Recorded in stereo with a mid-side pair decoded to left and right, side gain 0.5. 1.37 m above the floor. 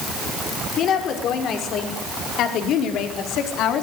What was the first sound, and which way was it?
A woman speaking, 65° left.